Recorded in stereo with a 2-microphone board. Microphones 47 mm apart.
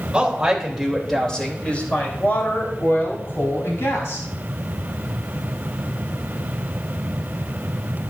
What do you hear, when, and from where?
0.1 s a woman speaking: 15° right (ahead or behind), 3 m; by 4.3 s 70° left (ahead or behind), 6 m